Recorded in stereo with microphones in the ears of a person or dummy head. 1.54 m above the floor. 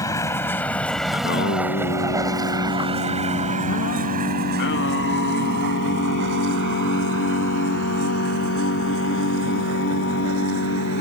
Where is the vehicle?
20° left (ahead or behind); by 11.0 s 80° right.